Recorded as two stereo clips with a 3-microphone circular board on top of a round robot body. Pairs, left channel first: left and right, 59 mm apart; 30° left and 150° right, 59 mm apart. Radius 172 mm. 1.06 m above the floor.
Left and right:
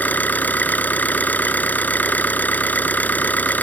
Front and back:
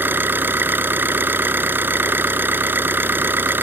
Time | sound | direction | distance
0.0 | an engine running | 155° left | ?